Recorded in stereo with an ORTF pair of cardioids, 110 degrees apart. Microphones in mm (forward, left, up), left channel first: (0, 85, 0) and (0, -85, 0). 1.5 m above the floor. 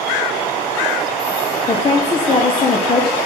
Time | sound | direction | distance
1.7 | a woman speaking | 30° left | 0.7 m